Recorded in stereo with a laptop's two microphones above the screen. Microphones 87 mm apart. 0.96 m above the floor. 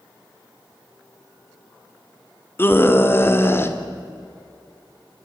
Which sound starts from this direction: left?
A scream, at 2.6 s.